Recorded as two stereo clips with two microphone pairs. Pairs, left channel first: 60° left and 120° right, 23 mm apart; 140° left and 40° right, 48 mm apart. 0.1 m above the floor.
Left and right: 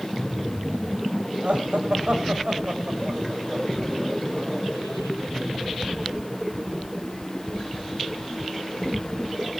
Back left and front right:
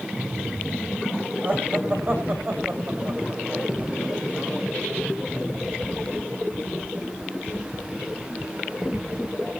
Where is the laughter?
90° right, 7 m; by 4.6 s 75° right, 8 m.